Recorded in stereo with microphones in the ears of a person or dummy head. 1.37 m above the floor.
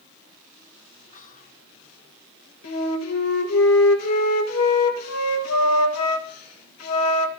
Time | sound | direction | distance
1.1 | whispering | 45° left (ahead or behind) | 1.2 m
2.6 | a flute | 85° left | 1.8 m